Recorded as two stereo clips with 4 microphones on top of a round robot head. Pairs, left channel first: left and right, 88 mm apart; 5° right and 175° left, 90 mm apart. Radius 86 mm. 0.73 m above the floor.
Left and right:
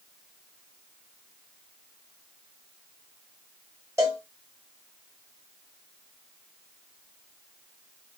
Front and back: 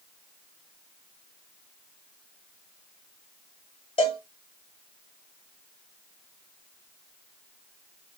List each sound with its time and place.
4.0 s a cowbell: 25° right, 0.6 m